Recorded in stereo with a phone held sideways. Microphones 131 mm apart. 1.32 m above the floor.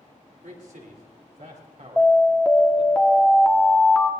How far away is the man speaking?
About 3.5 m.